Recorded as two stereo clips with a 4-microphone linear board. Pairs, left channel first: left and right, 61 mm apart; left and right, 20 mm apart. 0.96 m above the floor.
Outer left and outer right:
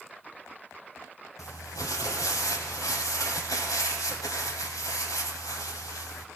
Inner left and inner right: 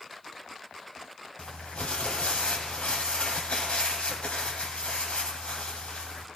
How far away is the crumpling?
About 1.9 m.